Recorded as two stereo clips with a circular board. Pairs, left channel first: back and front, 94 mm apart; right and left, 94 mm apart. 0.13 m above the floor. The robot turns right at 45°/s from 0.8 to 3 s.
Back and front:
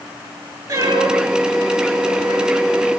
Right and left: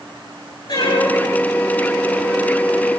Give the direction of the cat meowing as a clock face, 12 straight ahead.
2 o'clock.